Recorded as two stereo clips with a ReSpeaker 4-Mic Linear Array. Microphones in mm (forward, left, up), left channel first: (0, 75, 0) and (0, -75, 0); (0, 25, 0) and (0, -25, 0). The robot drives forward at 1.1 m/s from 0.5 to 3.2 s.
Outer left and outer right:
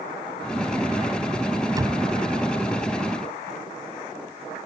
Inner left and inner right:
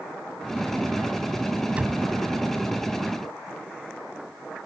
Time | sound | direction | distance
1.7 | a door slam | 25° right (ahead or behind) | ?